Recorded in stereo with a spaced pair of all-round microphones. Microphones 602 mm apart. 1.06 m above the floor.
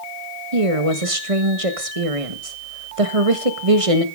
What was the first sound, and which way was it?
A woman speaking, 60° right (ahead or behind).